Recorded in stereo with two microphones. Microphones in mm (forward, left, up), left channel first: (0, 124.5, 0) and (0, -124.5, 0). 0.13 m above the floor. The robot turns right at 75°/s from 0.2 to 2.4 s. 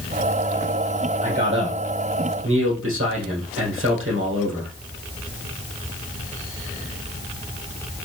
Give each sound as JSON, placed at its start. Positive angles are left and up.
{"t": 1.2, "sound": "a man speaking", "azimuth_deg": -150, "distance_m": 4.0}